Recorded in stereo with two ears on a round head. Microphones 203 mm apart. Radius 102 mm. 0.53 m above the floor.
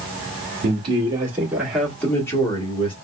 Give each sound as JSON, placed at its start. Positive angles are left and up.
{"t": 0.6, "sound": "a man speaking", "side_deg": -25, "distance_m": 1.6}